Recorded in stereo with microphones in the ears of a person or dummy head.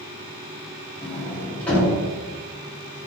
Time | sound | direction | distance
1.0 | a sliding door | 10° left (ahead or behind) | 2.5 m